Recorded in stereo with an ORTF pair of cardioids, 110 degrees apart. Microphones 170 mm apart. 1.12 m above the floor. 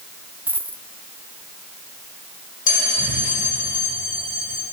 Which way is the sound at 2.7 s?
50° left.